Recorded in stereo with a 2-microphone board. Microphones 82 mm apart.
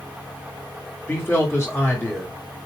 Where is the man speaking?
30° left (ahead or behind), 2 m.